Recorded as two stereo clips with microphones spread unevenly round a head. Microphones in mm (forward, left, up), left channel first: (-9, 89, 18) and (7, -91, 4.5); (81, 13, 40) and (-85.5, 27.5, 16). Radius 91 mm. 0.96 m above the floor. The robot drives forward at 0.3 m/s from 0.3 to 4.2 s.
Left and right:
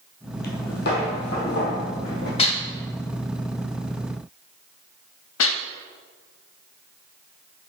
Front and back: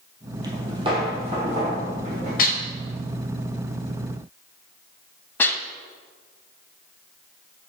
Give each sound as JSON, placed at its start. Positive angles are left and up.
{"t": 0.4, "sound": "footsteps", "azimuth_deg": 105, "distance_m": 1.5}
{"t": 2.4, "sound": "dishes clattering", "azimuth_deg": 35, "distance_m": 0.8}